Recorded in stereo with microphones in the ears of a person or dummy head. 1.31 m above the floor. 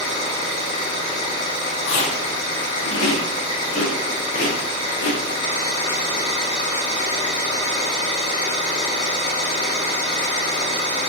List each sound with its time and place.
0.0 s an engine running: 40° left (ahead or behind), 1.2 m
1.9 s chewing: 60° left (ahead or behind), 0.5 m